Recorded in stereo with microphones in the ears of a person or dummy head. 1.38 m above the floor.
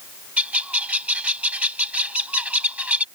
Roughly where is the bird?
Centre.